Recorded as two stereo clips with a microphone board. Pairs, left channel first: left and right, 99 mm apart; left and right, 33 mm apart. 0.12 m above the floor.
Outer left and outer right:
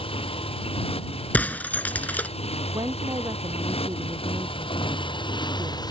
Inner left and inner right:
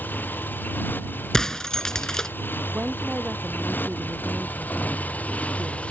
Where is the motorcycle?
70° left (ahead or behind); by 5.9 s 45° left (ahead or behind).